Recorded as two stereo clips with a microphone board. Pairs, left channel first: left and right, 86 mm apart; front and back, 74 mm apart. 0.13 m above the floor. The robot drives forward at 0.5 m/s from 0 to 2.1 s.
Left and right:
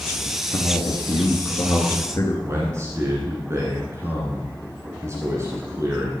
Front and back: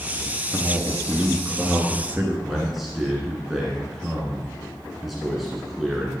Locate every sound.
0.2 s a man speaking: 80° left, 1.8 m; by 2.3 s 120° left, 1.9 m
2.4 s a man speaking: 95° right, 1.7 m